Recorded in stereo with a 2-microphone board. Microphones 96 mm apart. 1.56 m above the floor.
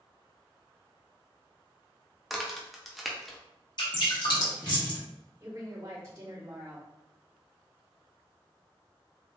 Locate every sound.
2.3 s a crack: centre (ahead or behind), 0.5 m
3.8 s dripping: 50° left (ahead or behind), 1.0 m
5.4 s a woman speaking: 30° right (ahead or behind), 1.6 m